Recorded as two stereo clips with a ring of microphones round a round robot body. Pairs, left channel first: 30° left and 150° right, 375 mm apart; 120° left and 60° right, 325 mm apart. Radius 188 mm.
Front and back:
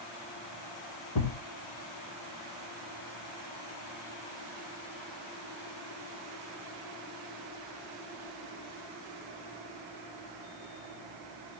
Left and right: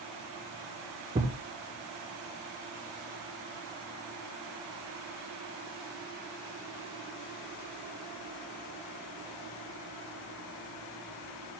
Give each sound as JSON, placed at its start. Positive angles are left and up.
{"t": 1.1, "sound": "a thud", "azimuth_deg": 15, "distance_m": 2.5}